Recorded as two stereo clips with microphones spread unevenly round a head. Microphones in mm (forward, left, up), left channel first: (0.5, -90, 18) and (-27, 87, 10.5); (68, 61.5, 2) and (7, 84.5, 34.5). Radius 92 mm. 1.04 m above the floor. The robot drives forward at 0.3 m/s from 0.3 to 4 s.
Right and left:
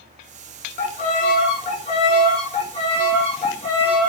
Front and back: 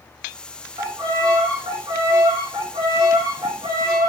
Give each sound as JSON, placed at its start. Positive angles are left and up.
{"t": 0.8, "sound": "a violin", "azimuth_deg": -130, "distance_m": 2.5}